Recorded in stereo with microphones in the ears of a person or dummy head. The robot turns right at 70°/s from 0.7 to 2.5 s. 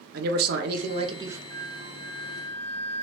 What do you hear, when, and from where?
0.1 s a man speaking: 60° right, 0.8 m; by 1.4 s 10° right, 0.8 m
1.5 s a flute: 60° right, 1.8 m; by 3.0 s 10° left, 1.8 m